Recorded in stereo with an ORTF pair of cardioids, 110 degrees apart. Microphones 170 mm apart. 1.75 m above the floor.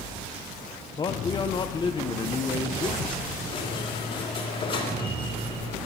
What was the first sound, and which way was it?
A man speaking, 30° left.